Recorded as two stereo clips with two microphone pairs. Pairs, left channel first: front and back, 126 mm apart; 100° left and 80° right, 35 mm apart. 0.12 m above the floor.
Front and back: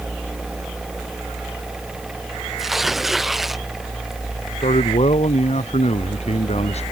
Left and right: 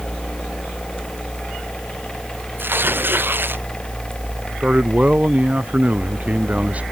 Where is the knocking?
No knocking in this recording.